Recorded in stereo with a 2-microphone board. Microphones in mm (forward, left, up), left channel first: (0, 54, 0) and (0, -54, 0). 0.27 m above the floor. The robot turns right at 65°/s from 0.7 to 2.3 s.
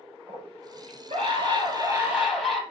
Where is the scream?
110° right, 5.5 m; by 2.6 s 5° right, 5.5 m.